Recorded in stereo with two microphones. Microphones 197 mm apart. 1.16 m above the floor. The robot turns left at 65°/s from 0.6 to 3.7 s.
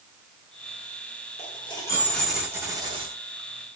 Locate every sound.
1.4 s a dropped coin: 60° left, 0.9 m; by 3.1 s 55° right, 0.9 m